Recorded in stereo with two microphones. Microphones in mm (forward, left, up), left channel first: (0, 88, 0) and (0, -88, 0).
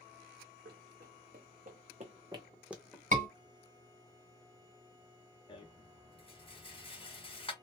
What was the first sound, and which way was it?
Running footsteps, 75° right (ahead or behind).